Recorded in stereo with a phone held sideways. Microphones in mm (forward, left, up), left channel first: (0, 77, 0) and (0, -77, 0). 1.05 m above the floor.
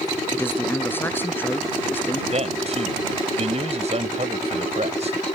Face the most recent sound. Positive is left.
turn(degrees=-50)  # may be behind; listen again after turning